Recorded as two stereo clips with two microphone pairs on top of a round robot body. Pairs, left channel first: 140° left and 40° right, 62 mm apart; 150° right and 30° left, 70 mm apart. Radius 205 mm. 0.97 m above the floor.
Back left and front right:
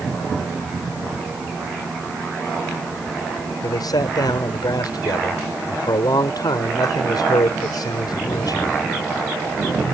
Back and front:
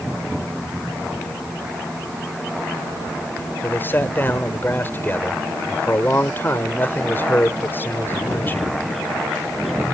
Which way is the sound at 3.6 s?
150° left.